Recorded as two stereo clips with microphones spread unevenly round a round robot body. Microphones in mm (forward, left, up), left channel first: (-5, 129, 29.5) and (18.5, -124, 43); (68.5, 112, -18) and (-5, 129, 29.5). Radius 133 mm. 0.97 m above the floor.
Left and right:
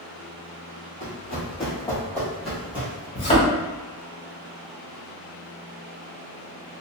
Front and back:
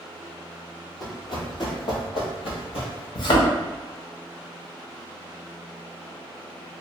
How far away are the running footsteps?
About 1.6 m.